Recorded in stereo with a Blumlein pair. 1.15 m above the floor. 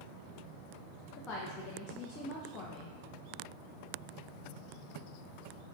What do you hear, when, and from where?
1.2 s a woman speaking: 25° left, 0.7 m